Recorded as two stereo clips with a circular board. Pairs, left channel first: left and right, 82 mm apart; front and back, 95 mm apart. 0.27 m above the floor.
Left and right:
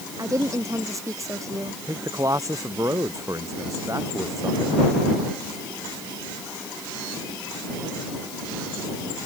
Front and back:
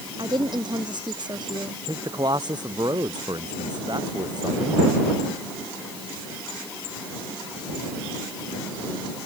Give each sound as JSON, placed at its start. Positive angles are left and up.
{"t": 0.2, "sound": "a woman speaking", "azimuth_deg": -140}
{"t": 1.9, "sound": "a man speaking", "azimuth_deg": -140}